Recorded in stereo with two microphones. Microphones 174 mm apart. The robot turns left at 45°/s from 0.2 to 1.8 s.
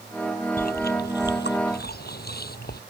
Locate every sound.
0.6 s chewing: 55° left (ahead or behind); by 2.8 s 65° left (ahead or behind)